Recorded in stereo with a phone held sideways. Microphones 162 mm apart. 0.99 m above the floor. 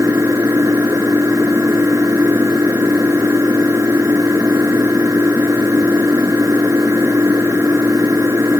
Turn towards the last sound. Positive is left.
turn(degrees=-20)  # may be behind; listen again after turning